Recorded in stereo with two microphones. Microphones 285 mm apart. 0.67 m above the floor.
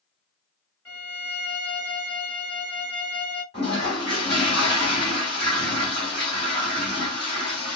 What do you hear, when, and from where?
0.8 s a violin: 55° left (ahead or behind), 2.5 m
3.5 s a toilet flushing: 40° left (ahead or behind), 2.5 m